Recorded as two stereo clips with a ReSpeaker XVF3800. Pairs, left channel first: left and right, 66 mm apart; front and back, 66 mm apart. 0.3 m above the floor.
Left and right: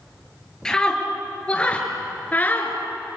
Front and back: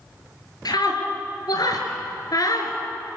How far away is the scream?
About 4.5 m.